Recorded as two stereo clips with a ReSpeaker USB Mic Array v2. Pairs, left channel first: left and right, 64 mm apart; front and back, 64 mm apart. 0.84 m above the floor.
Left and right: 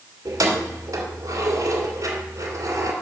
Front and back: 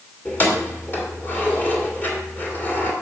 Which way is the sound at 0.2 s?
60° right.